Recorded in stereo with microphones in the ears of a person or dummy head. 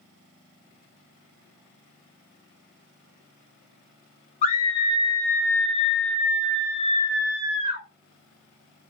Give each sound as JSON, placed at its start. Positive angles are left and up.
{"t": 4.4, "sound": "a scream", "side_deg": 30, "distance_m": 0.5}